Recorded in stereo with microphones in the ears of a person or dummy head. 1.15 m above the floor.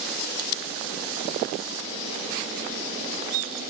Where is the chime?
I don't hear a chime.